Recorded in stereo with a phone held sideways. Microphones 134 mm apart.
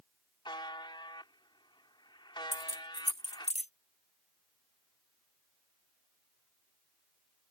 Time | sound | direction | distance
0.5 | a buzzer | 35° left (ahead or behind) | ?
2.5 | keys jangling | 55° left (ahead or behind) | ?